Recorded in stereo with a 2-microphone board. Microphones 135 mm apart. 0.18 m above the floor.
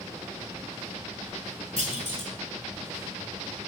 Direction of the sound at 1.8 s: 55° left (ahead or behind).